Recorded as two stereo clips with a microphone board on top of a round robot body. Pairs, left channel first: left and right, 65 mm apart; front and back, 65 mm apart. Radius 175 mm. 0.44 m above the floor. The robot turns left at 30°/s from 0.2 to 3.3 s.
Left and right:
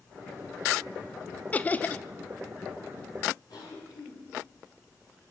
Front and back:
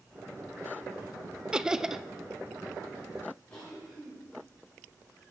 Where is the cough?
75° left, 9 m.